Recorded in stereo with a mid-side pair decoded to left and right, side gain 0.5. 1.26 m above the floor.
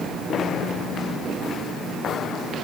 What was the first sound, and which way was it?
Only background noise.